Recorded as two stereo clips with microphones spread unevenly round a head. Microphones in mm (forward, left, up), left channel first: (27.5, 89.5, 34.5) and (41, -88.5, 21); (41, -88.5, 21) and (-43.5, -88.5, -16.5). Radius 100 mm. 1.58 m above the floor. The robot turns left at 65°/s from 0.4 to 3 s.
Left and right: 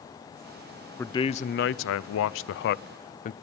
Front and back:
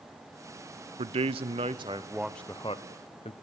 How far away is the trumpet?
No trumpet in this recording.